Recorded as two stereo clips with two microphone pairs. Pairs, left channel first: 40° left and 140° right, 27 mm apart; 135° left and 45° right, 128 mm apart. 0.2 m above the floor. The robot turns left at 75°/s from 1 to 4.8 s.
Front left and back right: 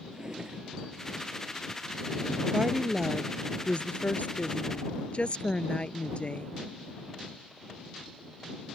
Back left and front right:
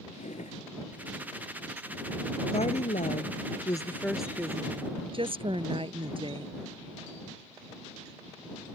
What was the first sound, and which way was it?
A drawer, 155° left.